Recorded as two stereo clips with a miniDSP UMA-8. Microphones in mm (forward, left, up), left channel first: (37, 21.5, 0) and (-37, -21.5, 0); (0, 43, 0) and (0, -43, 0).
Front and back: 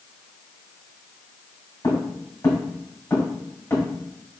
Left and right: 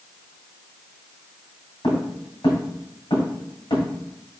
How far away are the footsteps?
About 2.0 m.